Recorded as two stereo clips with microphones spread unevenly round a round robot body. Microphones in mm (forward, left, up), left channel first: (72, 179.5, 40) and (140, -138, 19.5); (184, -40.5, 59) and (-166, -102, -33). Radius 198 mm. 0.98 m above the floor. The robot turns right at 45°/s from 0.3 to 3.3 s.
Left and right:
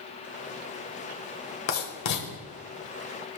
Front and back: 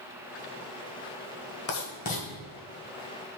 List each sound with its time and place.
1.7 s writing: 55° left, 1.5 m; by 2.3 s 80° left, 1.5 m